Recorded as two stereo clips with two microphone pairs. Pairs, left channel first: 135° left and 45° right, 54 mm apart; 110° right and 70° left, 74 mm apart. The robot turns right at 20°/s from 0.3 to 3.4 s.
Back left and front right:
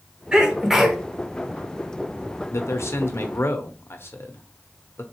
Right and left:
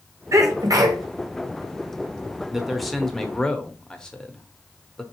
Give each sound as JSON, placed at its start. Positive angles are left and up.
{"t": 0.3, "sound": "a sneeze", "azimuth_deg": 30, "distance_m": 1.0}
{"t": 2.5, "sound": "a man speaking", "azimuth_deg": 155, "distance_m": 0.8}